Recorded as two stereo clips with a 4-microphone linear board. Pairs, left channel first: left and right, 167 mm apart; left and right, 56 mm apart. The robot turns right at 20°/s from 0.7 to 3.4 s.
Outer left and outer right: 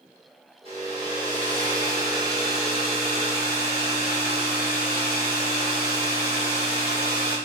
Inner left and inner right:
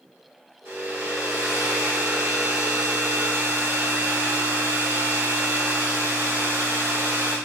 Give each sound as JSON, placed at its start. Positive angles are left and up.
{"t": 0.7, "sound": "a hair dryer", "azimuth_deg": -145, "distance_m": 5.0}